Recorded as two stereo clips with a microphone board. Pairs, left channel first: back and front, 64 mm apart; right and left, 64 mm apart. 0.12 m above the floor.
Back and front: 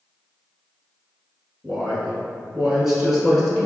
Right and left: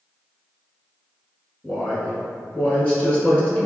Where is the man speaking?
70° right, 1.1 m.